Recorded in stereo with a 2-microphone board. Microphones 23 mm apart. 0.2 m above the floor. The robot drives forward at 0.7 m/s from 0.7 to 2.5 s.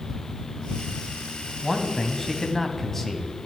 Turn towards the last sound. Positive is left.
turn(degrees=15)  # may be behind; listen again after turning